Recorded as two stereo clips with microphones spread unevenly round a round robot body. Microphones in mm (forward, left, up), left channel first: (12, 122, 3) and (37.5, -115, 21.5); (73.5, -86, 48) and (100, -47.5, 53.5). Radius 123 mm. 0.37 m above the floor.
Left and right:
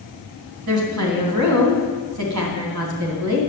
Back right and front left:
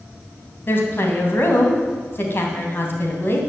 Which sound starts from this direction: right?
A woman speaking, at 0.7 s.